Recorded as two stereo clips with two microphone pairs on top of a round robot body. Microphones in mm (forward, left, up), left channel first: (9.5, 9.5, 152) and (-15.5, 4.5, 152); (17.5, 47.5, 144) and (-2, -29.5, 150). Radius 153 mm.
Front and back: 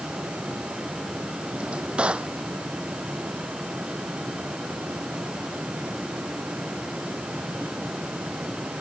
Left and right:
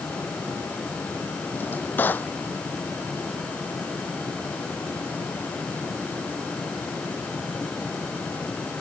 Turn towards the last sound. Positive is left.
turn(degrees=145)